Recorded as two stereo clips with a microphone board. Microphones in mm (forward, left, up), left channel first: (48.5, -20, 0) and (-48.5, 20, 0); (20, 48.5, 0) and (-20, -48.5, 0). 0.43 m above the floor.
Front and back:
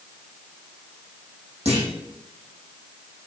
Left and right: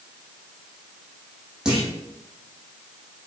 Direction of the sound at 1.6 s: 165° left.